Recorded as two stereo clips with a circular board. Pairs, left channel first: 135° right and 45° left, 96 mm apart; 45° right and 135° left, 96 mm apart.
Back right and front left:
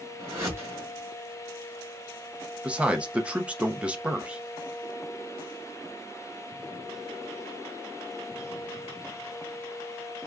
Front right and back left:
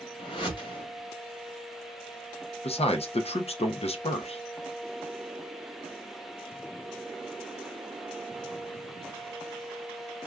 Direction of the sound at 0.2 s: 15° right.